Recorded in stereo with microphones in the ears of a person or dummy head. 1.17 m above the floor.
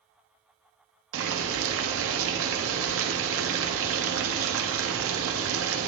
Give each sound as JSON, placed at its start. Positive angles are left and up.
{"t": 1.1, "sound": "boiling", "side_deg": -70, "distance_m": 1.0}